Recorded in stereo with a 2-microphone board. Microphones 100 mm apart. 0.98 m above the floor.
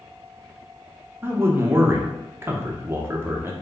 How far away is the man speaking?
About 0.6 m.